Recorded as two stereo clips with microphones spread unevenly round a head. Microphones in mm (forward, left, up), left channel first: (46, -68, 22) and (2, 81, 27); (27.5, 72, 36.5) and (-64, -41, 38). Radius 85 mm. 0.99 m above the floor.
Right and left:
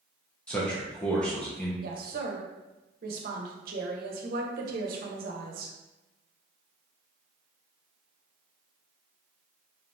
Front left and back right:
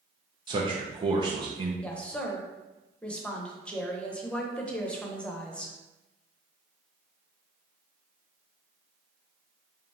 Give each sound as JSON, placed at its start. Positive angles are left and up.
{"t": 0.5, "sound": "a man speaking", "azimuth_deg": -150, "distance_m": 0.7}
{"t": 1.8, "sound": "a woman speaking", "azimuth_deg": 130, "distance_m": 0.9}